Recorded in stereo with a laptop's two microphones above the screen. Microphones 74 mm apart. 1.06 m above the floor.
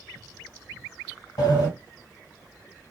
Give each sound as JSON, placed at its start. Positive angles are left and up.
{"t": 1.4, "sound": "a sliding door", "side_deg": 65, "distance_m": 1.7}